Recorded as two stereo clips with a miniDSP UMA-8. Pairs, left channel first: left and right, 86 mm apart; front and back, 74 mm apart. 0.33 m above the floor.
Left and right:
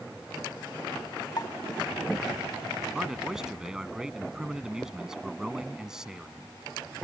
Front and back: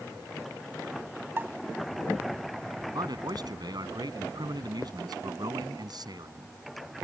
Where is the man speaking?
175° right.